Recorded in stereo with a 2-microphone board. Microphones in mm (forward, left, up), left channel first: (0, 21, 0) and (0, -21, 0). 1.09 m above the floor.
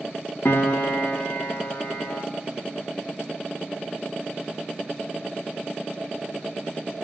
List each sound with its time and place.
0.5 s a piano: 55° left (ahead or behind), 0.9 m